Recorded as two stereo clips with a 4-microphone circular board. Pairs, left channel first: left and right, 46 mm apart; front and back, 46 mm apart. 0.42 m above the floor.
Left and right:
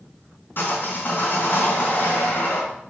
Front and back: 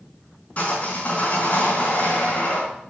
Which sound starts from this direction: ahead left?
Sawing, at 0.6 s.